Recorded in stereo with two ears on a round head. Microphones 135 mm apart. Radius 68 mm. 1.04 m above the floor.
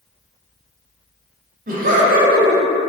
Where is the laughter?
60° right (ahead or behind), 0.9 m.